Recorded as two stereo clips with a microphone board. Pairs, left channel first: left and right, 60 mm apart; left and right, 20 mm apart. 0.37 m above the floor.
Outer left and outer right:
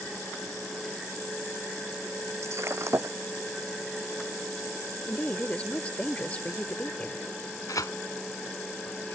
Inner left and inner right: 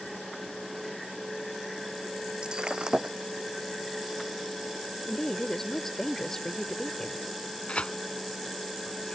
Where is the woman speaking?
25° left (ahead or behind).